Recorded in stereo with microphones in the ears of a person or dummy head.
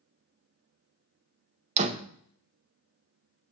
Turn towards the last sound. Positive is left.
turn(degrees=-40)  # may be behind; listen again after turning